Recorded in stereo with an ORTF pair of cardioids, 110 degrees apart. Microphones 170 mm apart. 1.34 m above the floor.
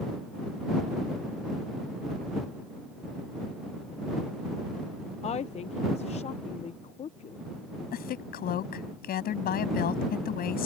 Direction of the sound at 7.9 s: 60° left.